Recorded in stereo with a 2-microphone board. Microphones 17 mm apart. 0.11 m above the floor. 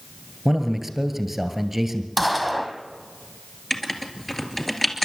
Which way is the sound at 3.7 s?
15° left (ahead or behind).